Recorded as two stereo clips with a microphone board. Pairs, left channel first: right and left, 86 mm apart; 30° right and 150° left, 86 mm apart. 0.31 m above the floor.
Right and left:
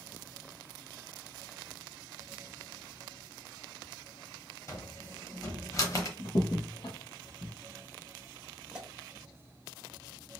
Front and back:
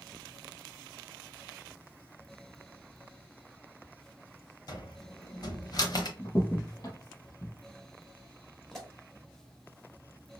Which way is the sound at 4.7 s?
45° right.